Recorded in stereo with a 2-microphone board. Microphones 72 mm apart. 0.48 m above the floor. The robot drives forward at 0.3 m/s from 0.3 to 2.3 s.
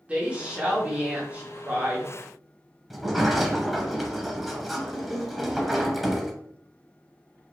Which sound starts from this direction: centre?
A sliding door, at 2.9 s.